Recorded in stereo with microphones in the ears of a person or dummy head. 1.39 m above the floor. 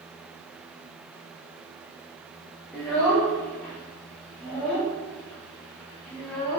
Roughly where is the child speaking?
Centre.